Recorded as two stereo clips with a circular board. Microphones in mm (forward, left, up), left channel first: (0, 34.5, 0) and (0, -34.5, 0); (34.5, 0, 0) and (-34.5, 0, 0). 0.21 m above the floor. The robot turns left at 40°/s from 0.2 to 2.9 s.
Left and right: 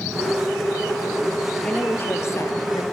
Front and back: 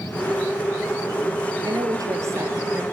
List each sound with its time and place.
1.6 s a woman speaking: 165° left, 3.5 m; by 2.8 s 115° left, 3.5 m